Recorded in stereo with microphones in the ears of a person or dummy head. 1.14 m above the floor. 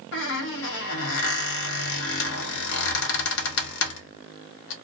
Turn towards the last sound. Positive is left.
turn(degrees=60)  # may be behind; listen again after turning